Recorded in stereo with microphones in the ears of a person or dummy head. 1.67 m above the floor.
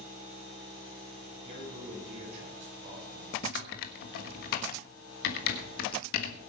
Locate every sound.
1.4 s a man speaking: 40° right (ahead or behind), 8.5 m
3.4 s typing on a keyboard: 55° left (ahead or behind), 1.4 m